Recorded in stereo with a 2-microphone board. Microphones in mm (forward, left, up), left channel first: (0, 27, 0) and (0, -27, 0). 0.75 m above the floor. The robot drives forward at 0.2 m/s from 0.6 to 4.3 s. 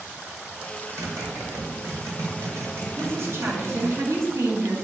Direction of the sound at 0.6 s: 70° right (ahead or behind).